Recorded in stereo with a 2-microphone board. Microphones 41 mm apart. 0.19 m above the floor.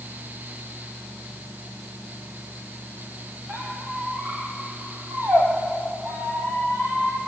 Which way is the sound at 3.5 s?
75° right (ahead or behind).